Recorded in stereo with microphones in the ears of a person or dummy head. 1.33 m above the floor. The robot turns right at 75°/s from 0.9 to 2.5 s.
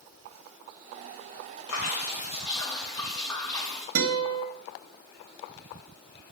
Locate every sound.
1.7 s dripping: 95° left, 2 m; by 3.9 s 160° left, 2 m
4.0 s a guitar: 75° right (ahead or behind), 1.5 m